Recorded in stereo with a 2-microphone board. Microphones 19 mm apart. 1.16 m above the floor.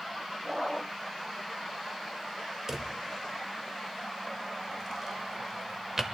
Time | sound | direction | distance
2.7 | a drawer | 25° right (ahead or behind) | 0.9 m